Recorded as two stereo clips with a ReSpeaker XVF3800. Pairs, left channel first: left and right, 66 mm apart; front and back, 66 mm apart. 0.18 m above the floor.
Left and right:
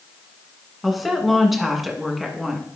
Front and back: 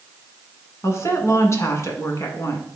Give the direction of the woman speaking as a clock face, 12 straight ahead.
12 o'clock.